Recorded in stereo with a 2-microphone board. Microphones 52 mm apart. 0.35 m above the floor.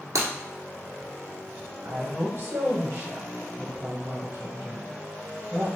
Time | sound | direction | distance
0.1 | breaking glass | 85° right | 1.3 m
1.8 | a woman speaking | 50° right (ahead or behind) | 1.9 m